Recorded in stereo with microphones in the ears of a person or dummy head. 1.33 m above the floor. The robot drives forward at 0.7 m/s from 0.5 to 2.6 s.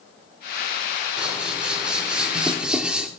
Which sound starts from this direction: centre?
Scissors, at 1.2 s.